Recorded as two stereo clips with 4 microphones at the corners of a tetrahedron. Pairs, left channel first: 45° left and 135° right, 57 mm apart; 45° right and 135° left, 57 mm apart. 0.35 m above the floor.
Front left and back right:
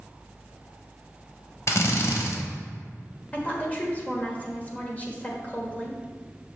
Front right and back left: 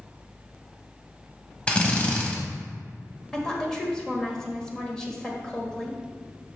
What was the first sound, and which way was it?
A drill, 20° left.